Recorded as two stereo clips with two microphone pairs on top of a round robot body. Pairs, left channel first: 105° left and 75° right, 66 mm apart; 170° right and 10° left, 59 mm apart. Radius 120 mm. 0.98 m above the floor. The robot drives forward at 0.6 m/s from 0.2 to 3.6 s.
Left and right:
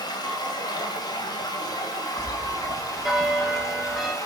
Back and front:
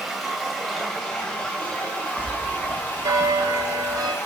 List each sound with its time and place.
0.0 s running water: 100° left, 2.5 m; by 4.2 s 135° left, 3.5 m
2.2 s a bell: 10° left, 4.5 m; by 4.2 s 15° left, 3.5 m